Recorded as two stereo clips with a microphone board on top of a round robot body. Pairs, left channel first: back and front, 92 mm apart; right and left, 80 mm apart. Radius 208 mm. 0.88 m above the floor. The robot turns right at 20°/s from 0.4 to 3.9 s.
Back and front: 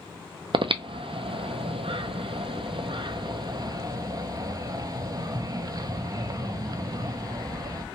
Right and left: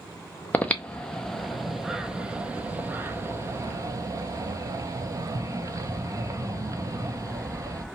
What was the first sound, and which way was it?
Breathing, 25° right.